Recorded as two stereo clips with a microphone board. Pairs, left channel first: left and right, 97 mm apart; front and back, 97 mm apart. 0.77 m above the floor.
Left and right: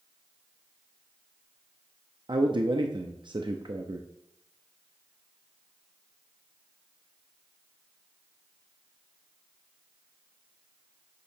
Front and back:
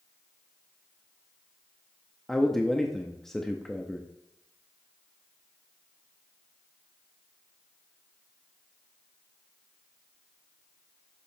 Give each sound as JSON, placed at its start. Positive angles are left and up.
{"t": 2.3, "sound": "a man speaking", "azimuth_deg": -85, "distance_m": 0.7}